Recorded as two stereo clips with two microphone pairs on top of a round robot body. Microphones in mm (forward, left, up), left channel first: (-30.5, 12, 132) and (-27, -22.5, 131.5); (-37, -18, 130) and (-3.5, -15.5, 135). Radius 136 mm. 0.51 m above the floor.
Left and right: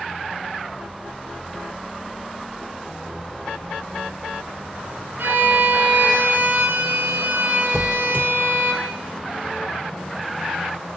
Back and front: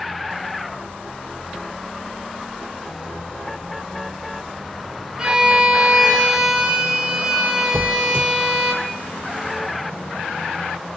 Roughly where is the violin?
Right.